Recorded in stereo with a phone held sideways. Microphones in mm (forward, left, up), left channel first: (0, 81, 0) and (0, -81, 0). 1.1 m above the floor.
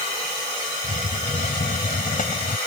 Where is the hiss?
55° left (ahead or behind).